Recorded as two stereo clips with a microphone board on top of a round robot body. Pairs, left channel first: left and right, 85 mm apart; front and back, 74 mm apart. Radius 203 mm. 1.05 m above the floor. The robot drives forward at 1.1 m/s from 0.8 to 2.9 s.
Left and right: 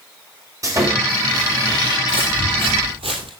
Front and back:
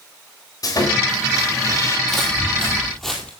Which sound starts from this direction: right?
Footsteps, at 2.1 s.